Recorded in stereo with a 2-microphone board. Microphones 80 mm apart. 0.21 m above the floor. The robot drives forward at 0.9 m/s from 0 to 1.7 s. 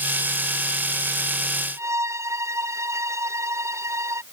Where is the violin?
35° right (ahead or behind).